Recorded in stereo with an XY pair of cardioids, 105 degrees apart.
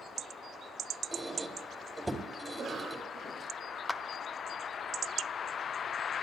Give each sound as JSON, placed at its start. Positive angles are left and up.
{"t": 1.1, "sound": "a squeak", "azimuth_deg": -10, "distance_m": 2.5}
{"t": 2.5, "sound": "a cough", "azimuth_deg": -45, "distance_m": 1.8}
{"t": 3.9, "sound": "a clap", "azimuth_deg": 15, "distance_m": 0.6}